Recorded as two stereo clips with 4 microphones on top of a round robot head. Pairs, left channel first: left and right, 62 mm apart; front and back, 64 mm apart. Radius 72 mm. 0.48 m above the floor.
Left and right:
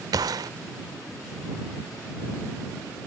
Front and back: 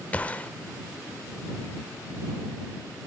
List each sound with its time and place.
0.1 s a gunshot: 70° right